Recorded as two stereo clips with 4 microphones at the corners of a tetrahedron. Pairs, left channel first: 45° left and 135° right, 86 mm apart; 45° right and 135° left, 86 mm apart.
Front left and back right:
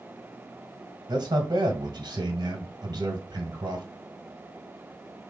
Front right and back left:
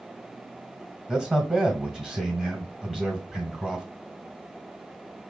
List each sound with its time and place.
1.1 s a man speaking: 145° right, 1.5 m